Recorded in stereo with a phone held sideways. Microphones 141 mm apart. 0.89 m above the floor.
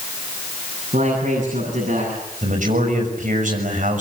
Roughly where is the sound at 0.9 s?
Right.